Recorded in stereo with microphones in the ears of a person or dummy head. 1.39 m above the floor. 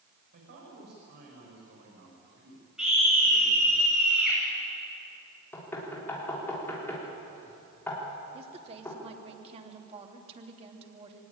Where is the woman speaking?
35° right (ahead or behind), 3 m.